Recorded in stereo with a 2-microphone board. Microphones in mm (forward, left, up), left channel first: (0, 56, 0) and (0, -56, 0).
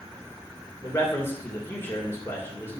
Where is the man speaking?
25° left (ahead or behind), 3 m.